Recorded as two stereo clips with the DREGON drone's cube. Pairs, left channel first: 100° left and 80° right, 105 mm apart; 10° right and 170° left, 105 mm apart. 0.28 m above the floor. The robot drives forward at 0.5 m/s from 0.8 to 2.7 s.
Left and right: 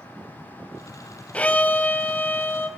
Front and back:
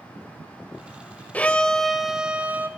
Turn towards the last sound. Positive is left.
turn(degrees=130)